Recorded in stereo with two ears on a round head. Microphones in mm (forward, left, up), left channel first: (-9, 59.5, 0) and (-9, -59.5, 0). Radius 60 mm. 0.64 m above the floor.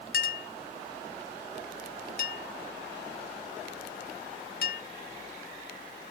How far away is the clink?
About 0.6 m.